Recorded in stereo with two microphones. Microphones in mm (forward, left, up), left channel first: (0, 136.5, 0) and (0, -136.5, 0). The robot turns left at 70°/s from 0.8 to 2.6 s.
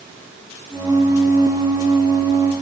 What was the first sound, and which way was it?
Only background noise.